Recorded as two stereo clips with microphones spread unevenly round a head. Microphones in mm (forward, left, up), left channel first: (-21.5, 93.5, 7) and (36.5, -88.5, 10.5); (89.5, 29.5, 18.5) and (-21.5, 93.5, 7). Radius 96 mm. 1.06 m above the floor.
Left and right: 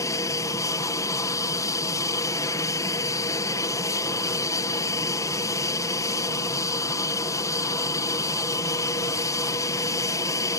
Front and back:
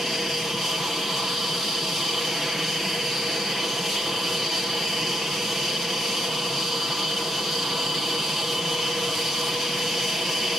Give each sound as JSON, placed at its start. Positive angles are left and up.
{"t": 0.0, "sound": "an aircraft", "azimuth_deg": 70}